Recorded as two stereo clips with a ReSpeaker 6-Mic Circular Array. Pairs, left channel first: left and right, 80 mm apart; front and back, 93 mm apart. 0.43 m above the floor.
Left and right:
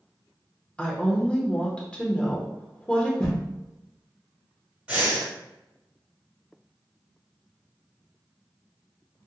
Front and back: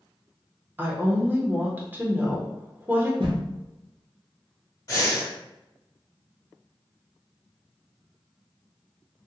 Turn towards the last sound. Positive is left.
turn(degrees=-25)